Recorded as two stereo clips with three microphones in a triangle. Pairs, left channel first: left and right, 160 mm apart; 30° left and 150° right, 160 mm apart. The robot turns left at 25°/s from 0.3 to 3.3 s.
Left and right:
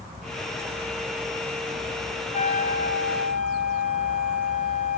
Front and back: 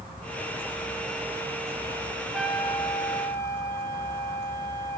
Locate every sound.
2.3 s a trumpet: 120° left, 2.5 m; by 5.0 s 100° left, 2.5 m